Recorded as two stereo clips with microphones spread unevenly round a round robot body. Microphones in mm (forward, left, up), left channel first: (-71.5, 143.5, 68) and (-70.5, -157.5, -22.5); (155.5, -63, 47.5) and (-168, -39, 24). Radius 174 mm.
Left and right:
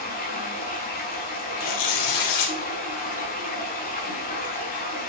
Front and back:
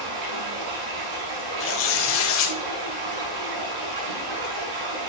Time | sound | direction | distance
0.0 | running water | 155° left | 5.5 m
1.6 | tearing paper | 50° left | 2.5 m